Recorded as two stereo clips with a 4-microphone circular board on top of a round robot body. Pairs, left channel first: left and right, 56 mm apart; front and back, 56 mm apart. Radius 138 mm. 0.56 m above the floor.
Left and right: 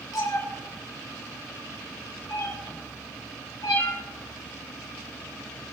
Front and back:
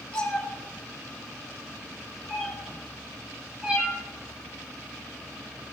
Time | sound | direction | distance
0.1 | a cat meowing | 75° left | 5 m